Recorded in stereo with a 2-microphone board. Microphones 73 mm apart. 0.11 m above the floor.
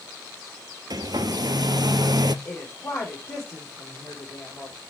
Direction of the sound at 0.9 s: 65° right (ahead or behind).